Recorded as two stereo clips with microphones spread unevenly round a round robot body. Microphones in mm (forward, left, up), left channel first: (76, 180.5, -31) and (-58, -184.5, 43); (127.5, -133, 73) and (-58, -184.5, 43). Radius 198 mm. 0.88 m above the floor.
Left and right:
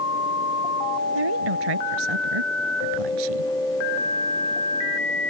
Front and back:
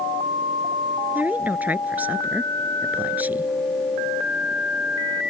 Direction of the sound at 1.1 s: 80° right.